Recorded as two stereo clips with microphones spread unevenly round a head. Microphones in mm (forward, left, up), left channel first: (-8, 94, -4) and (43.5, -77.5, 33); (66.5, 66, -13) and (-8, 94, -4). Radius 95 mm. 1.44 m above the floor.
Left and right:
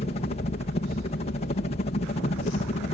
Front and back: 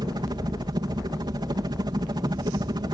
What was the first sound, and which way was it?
A helicopter, 145° left.